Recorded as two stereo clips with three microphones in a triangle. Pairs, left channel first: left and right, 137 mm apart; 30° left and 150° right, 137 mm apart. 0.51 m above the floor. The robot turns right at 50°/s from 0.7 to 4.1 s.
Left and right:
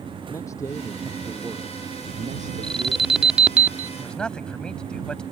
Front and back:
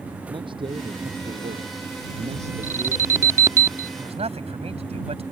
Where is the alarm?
165° left; by 3.9 s 135° right.